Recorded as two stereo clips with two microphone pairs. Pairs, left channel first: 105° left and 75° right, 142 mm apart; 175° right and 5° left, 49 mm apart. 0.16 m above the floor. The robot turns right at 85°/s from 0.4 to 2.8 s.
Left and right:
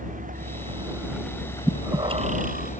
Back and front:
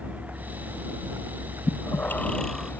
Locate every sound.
0.0 s a vehicle: 55° right; by 2.8 s 135° left
1.7 s breathing: 165° right; by 2.7 s 75° right